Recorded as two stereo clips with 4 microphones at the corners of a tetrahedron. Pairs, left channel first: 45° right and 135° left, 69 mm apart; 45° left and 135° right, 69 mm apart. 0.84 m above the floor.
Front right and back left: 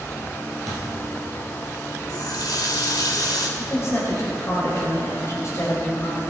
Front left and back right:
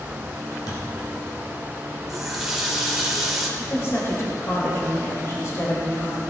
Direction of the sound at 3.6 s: Straight ahead.